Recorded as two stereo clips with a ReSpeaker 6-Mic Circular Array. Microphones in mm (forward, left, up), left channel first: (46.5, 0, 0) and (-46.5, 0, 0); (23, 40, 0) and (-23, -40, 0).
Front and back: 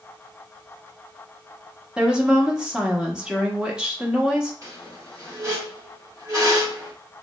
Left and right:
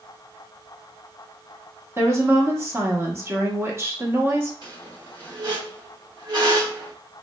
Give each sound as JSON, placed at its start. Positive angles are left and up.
{"t": 2.0, "sound": "a woman speaking", "azimuth_deg": -110, "distance_m": 0.8}
{"t": 4.6, "sound": "a squeak", "azimuth_deg": -135, "distance_m": 1.1}